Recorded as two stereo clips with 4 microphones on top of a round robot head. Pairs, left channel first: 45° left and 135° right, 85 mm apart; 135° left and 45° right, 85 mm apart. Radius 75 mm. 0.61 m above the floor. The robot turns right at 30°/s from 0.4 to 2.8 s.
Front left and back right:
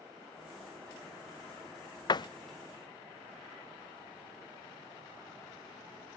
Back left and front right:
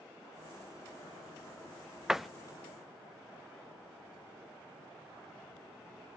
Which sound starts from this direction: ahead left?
A door slam, at 2.1 s.